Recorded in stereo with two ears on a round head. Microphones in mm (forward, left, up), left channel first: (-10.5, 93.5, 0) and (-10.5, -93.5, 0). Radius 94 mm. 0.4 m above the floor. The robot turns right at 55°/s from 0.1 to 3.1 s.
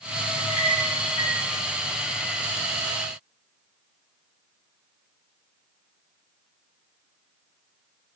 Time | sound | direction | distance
0.4 | a clink | 35° left (ahead or behind) | 6.5 m